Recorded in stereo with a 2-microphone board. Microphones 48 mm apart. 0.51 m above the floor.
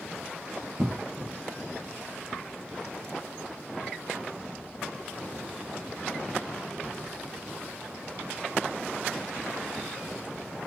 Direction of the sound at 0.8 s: 55° right (ahead or behind).